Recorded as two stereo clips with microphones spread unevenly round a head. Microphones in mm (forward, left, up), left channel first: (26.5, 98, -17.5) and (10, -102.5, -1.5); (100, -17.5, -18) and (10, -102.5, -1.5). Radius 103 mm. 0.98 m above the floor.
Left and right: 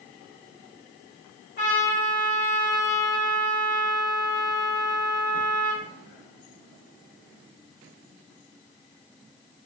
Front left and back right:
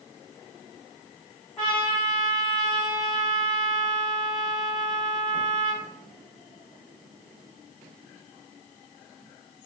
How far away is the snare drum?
No snare drum in this recording.